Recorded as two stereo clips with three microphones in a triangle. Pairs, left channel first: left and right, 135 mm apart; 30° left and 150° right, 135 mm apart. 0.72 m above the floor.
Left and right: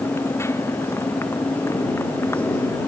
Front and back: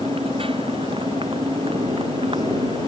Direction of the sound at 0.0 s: 160° left.